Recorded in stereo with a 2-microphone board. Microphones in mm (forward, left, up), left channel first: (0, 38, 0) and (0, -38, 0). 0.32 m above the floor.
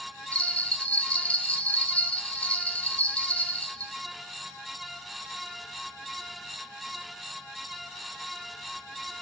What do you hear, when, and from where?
0.3 s a bell: 20° left (ahead or behind), 0.8 m